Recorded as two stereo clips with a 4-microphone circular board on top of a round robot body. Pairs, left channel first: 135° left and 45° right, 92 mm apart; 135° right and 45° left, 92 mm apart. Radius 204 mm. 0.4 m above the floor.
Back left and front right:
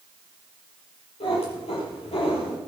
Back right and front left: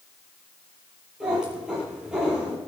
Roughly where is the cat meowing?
Behind left.